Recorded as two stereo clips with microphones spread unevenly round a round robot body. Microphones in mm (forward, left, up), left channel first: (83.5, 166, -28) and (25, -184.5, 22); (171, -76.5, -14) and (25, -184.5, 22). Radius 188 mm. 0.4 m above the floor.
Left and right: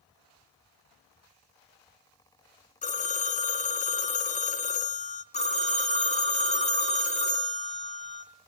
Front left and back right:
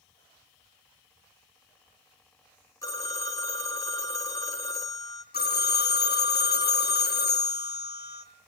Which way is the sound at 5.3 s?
10° left.